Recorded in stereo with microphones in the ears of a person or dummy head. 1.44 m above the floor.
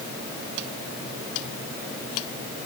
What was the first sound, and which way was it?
Only background noise.